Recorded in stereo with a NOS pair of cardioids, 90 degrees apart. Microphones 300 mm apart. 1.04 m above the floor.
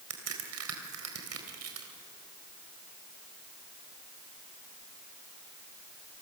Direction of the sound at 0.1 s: 55° right.